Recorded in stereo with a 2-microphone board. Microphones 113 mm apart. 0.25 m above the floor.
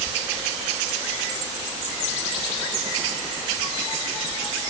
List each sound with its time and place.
Only background noise.